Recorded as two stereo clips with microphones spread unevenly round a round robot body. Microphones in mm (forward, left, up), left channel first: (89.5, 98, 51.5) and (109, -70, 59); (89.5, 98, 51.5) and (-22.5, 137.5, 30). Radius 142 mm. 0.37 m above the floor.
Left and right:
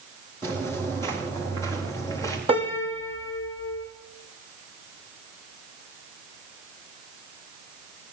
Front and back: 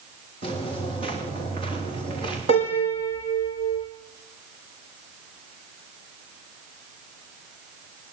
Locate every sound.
0.4 s footsteps: 155° right, 9 m; by 2.4 s 160° right, 8 m
2.5 s a piano: 150° right, 6 m